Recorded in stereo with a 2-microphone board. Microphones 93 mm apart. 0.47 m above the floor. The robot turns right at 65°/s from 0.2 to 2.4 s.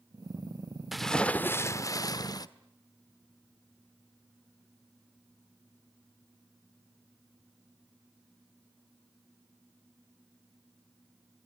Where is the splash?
5° right, 1.0 m; by 2.5 s 95° left, 1.0 m.